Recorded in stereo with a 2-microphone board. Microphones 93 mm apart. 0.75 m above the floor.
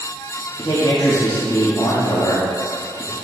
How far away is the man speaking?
About 1.5 m.